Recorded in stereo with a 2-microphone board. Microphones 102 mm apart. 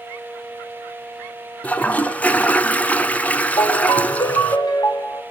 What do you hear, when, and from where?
1.6 s a toilet flushing: 15° left (ahead or behind), 1.3 m
3.6 s a ringtone: 50° left (ahead or behind), 1.3 m